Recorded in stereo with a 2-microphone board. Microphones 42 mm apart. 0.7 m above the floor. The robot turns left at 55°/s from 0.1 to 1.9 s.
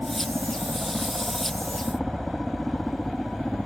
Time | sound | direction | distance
0.0 | a helicopter | 85° right | ?